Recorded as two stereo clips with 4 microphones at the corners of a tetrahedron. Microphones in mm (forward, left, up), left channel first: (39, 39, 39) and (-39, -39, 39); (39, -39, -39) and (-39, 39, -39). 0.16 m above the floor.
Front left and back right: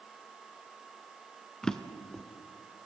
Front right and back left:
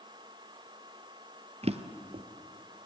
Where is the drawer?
130° left, 0.7 m.